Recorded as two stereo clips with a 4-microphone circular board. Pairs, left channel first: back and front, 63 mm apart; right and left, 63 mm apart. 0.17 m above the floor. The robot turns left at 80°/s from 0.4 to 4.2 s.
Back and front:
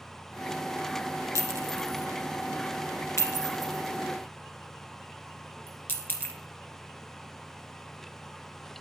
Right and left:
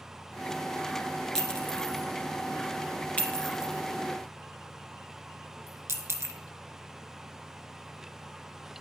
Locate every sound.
1.4 s a clink: 5° right, 1.5 m; by 6.3 s 125° left, 1.5 m